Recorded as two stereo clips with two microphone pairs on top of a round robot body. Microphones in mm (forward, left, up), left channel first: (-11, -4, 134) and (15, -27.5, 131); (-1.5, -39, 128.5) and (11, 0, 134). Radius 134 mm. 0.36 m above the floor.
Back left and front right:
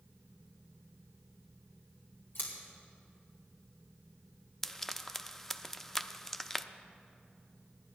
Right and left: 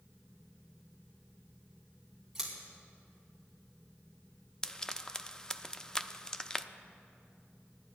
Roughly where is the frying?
Behind right.